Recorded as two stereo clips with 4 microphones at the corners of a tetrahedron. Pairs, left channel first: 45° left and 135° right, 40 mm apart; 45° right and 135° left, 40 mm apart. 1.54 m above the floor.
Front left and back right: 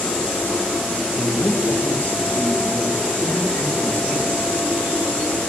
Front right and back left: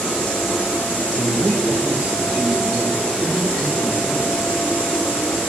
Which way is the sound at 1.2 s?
85° left.